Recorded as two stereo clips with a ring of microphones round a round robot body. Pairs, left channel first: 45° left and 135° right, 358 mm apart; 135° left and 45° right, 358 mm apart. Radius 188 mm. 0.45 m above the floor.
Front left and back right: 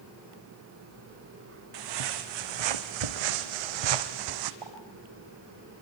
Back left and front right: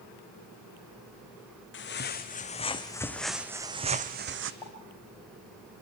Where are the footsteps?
165° right, 2 m; by 4.5 s 100° right, 1.5 m.